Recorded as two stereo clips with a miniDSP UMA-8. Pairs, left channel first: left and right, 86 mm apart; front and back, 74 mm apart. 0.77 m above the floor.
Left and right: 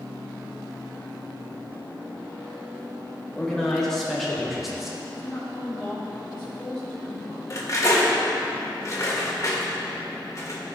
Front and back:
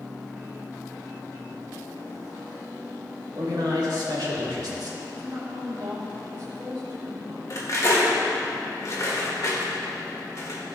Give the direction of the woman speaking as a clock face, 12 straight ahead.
6 o'clock.